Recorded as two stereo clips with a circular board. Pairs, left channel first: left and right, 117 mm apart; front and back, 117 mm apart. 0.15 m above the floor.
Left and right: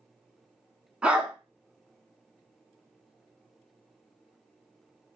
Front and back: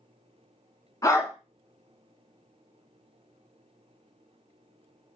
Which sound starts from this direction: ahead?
A dog barking, at 1.0 s.